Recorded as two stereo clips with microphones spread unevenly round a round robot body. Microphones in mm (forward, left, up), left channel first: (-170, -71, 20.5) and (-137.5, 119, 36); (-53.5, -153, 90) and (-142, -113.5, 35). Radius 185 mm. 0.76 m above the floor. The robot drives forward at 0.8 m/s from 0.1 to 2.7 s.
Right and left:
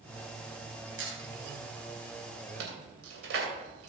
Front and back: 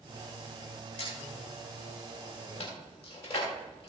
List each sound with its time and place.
1.0 s a squeak: 45° left, 4 m; by 3.9 s 65° left, 3 m